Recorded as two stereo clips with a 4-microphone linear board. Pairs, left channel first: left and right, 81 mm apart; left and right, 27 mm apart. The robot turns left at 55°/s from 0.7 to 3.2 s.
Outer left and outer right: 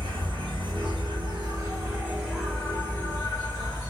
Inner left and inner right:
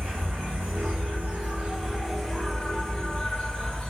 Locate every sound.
0.0 s an insect: 80° right, 1.8 m; by 3.9 s 140° left, 1.8 m